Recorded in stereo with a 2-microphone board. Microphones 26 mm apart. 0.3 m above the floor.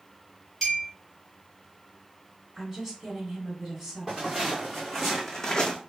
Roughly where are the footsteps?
Centre.